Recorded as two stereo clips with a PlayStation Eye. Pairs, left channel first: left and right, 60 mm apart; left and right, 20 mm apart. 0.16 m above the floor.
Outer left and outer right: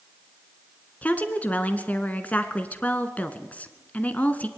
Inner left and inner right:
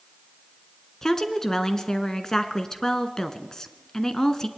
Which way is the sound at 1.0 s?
25° left (ahead or behind).